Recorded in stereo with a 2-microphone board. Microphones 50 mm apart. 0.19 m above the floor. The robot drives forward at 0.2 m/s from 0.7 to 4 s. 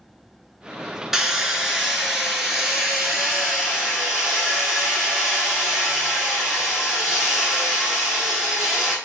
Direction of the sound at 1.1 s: 10° right (ahead or behind).